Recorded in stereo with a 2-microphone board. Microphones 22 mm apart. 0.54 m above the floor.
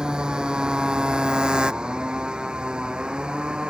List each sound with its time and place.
0.0 s a motorcycle: 40° right (ahead or behind); by 3.7 s 45° right (ahead or behind)